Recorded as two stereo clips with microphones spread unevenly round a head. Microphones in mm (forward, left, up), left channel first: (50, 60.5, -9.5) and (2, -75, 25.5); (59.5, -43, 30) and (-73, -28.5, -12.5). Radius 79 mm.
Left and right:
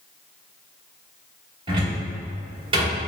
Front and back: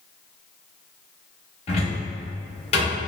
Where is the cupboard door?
50° right, 1.7 m.